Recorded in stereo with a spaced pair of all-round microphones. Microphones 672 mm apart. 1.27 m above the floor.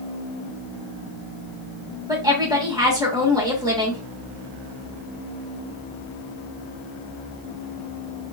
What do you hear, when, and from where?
2.1 s a woman speaking: 5° right (ahead or behind), 1.3 m